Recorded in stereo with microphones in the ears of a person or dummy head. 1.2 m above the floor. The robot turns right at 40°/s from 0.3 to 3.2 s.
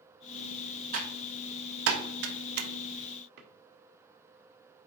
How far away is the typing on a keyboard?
About 1.3 m.